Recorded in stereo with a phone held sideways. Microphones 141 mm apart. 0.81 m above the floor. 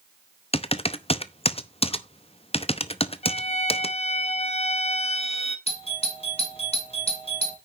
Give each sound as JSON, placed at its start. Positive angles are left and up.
{"t": 0.5, "sound": "typing on a keyboard", "side_deg": 45, "distance_m": 0.7}
{"t": 3.2, "sound": "a violin", "side_deg": 45, "distance_m": 1.1}
{"t": 5.7, "sound": "a doorbell", "side_deg": 45, "distance_m": 2.5}